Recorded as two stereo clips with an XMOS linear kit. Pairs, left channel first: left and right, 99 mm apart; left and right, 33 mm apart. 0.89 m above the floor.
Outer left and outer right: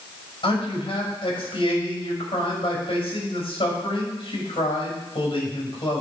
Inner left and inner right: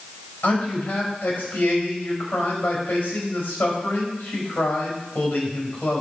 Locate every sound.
0.4 s a man speaking: 60° left (ahead or behind), 4.5 m